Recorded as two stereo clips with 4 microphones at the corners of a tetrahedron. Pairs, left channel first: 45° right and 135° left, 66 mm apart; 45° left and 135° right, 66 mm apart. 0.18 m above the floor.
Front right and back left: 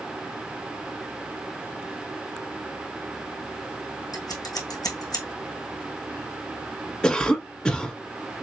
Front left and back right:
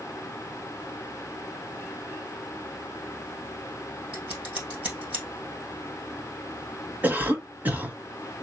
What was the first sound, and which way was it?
Scissors, 65° right.